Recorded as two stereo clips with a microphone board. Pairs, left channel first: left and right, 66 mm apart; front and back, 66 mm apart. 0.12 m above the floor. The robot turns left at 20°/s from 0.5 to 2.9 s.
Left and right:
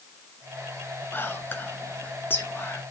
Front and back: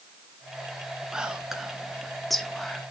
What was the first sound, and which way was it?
Whispering, 110° left.